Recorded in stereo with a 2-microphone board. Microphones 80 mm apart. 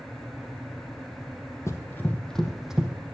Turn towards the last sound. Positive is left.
turn(degrees=-10)  # may be behind; listen again after turning